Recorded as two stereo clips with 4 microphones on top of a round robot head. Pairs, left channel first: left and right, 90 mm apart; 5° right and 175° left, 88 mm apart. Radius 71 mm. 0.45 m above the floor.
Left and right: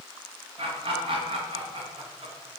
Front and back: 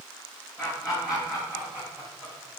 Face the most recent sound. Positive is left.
turn(degrees=-110)